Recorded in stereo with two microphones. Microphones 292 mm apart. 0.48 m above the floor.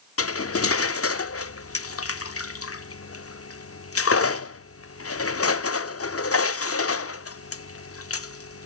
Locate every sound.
0.2 s cutlery clinking: 50° left (ahead or behind), 0.5 m